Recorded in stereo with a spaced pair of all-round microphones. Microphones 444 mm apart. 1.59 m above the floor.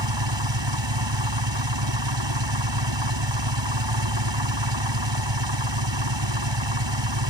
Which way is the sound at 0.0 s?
75° right (ahead or behind).